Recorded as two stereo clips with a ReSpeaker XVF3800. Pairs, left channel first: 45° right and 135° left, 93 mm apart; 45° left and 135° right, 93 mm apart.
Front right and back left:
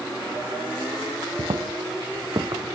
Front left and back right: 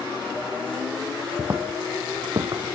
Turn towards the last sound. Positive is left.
turn(degrees=-175)